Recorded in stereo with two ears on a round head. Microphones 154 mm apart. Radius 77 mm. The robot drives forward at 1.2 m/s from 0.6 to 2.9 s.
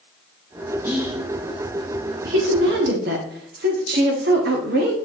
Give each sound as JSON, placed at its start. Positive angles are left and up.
{"t": 0.8, "sound": "whispering", "side_deg": -15, "distance_m": 1.6}
{"t": 2.2, "sound": "a woman speaking", "side_deg": -60, "distance_m": 1.6}